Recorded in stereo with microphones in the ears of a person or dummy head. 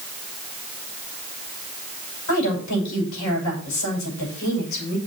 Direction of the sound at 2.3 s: 85° left.